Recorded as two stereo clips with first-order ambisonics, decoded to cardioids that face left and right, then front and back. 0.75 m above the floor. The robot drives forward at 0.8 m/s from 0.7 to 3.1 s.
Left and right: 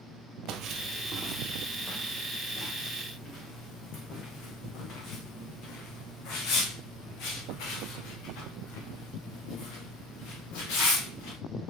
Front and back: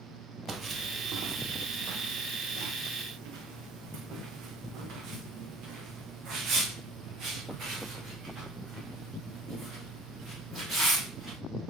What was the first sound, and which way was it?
Footsteps, 105° right.